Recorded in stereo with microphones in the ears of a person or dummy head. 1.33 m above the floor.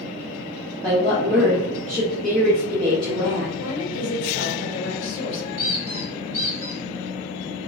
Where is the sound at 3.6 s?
75° left (ahead or behind), 1.1 m.